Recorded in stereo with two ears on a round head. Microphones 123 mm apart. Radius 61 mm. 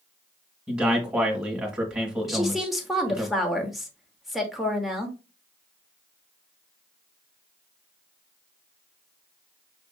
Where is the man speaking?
15° right (ahead or behind), 1.5 m.